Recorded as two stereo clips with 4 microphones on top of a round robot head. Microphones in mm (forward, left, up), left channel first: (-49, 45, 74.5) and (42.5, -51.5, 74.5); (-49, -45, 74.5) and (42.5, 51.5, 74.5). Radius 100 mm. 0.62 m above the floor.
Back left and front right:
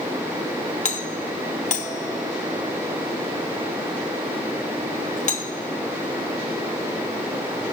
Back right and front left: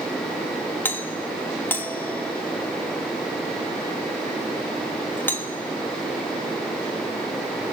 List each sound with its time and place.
0.8 s a doorbell: 150° left, 3 m